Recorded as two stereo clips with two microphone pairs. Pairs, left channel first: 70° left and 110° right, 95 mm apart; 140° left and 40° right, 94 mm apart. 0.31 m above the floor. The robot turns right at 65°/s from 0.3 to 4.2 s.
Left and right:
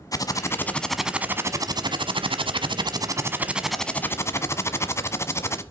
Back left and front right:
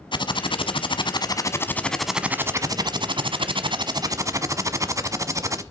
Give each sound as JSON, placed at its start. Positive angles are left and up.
{"t": 0.1, "sound": "typing on a keyboard", "azimuth_deg": 120, "distance_m": 0.9}